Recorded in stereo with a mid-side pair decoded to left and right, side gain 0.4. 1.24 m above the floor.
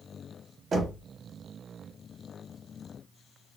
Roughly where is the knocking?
Ahead right.